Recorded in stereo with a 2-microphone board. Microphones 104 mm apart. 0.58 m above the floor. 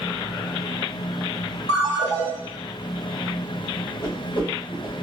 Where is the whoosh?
55° left (ahead or behind), 2 m.